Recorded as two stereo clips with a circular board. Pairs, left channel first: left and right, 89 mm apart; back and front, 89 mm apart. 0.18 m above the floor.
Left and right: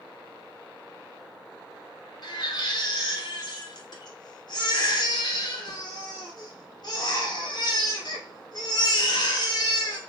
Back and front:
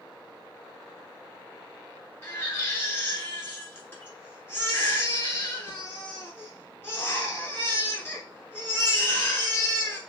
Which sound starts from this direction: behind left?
A baby crying, at 2.2 s.